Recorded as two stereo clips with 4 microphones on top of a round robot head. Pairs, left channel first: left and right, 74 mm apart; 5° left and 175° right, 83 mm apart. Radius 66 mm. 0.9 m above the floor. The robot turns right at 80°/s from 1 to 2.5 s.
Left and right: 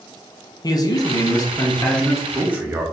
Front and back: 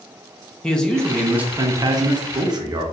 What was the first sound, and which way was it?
A man speaking, 85° left.